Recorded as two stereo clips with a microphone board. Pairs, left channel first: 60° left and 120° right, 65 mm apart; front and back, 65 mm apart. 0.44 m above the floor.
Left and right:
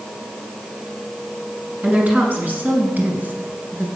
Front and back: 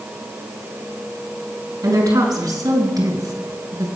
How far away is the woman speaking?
About 4 m.